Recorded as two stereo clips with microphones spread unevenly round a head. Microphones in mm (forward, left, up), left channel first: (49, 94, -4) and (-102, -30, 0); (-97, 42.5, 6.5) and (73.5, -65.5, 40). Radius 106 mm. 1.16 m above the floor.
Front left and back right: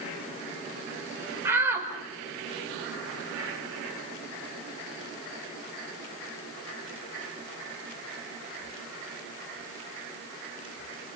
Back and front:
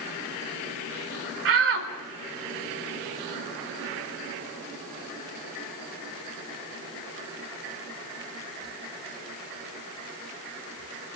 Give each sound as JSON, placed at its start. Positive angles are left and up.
{"t": 1.4, "sound": "a shout", "azimuth_deg": -60, "distance_m": 4.5}